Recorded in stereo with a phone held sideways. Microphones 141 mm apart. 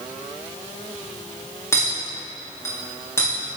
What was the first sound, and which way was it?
A clink, 20° left (ahead or behind).